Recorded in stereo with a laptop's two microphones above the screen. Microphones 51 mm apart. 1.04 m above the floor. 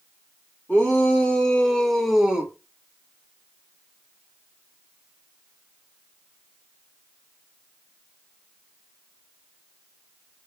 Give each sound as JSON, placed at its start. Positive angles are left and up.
{"t": 0.7, "sound": "a shout", "side_deg": 25, "distance_m": 1.7}